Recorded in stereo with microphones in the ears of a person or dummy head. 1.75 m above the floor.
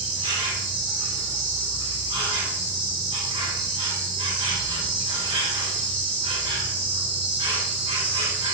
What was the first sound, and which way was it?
An insect, 25° right (ahead or behind).